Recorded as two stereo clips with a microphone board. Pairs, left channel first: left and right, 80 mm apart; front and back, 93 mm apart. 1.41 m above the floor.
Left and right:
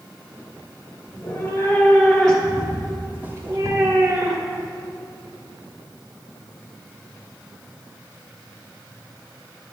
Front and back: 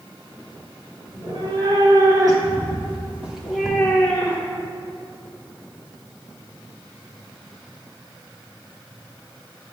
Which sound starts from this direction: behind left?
A cat meowing, at 1.1 s.